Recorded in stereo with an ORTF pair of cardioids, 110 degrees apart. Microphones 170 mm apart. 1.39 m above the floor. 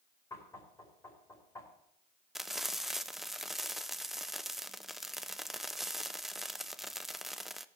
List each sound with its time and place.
0.3 s knocking: 20° left, 5.5 m
2.4 s frying: straight ahead, 0.5 m